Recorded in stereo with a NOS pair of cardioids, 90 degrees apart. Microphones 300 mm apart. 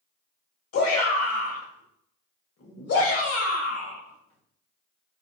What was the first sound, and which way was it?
A shout, 55° left.